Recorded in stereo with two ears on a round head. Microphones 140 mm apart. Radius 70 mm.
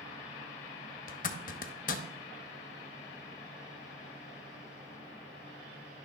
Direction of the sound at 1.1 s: 55° left (ahead or behind).